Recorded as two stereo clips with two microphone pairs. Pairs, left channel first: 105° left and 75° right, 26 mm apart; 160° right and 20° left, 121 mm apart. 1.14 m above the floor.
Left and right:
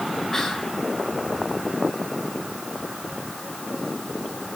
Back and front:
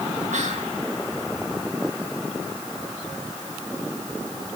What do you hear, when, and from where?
0.3 s whispering: 30° left, 1.6 m